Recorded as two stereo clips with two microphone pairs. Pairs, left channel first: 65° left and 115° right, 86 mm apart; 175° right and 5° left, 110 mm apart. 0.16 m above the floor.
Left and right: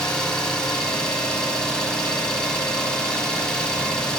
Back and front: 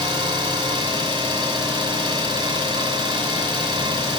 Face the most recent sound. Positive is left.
turn(degrees=-15)